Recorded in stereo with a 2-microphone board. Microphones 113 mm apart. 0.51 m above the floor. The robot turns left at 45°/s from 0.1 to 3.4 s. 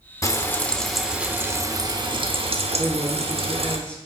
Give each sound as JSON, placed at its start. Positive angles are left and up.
{"t": 0.2, "sound": "frying", "azimuth_deg": 30, "distance_m": 0.5}
{"t": 2.8, "sound": "a woman speaking", "side_deg": -5, "distance_m": 1.0}